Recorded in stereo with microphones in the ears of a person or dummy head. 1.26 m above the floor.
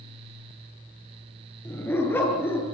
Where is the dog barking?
10° left (ahead or behind), 6.5 m.